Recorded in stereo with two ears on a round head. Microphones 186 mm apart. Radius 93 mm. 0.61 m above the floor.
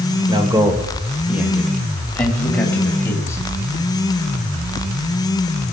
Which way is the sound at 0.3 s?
25° right (ahead or behind).